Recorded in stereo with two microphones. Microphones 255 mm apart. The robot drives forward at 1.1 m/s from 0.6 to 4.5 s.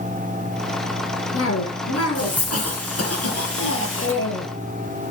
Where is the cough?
65° left (ahead or behind), 3.5 m; by 4.5 s 50° left (ahead or behind), 4 m.